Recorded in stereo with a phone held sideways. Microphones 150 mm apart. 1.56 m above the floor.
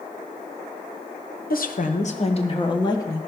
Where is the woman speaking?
75° left (ahead or behind), 1.0 m; by 3.2 s 20° left (ahead or behind), 1.8 m.